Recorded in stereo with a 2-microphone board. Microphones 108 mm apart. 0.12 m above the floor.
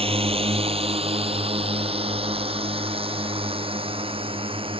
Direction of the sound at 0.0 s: 65° right (ahead or behind).